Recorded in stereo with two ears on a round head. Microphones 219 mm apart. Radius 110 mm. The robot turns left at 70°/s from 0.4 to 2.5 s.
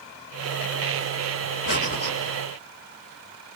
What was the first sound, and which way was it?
Breathing, 50° left.